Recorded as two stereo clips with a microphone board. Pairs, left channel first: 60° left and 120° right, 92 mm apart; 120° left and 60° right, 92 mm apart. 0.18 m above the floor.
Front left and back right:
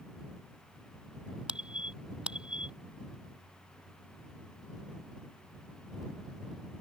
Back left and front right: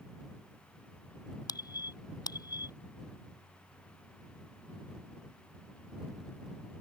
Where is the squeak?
160° left.